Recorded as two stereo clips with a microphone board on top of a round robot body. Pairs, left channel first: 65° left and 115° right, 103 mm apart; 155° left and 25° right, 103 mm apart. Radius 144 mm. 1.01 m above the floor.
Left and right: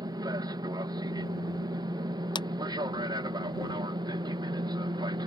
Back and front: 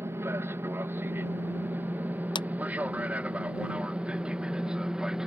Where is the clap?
115° left.